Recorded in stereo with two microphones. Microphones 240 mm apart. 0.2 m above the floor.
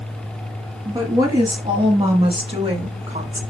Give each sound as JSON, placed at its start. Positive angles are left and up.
{"t": 0.8, "sound": "a woman speaking", "side_deg": -15, "distance_m": 4.0}